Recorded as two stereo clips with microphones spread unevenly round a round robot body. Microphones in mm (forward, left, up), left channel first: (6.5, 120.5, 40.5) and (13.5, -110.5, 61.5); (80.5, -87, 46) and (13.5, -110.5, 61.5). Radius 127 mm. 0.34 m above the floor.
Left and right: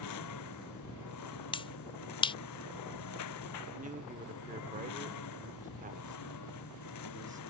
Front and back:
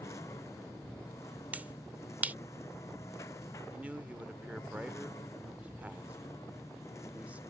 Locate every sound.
0.0 s a lawn mower: 85° left
1.5 s a finger snap: 125° left
3.7 s a man speaking: 80° right